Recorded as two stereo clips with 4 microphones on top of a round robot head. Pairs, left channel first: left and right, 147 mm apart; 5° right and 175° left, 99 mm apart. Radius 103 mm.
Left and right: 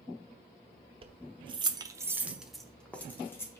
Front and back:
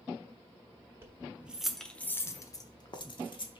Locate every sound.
1.0 s keys jangling: 130° right, 0.8 m; by 3.6 s 20° left, 1.1 m